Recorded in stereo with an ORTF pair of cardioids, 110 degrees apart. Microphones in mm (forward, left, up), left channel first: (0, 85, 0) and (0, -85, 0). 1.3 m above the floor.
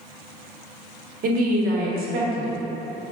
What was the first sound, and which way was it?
A woman speaking, 60° right.